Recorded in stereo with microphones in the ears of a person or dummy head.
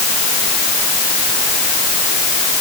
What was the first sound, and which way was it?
Only background noise.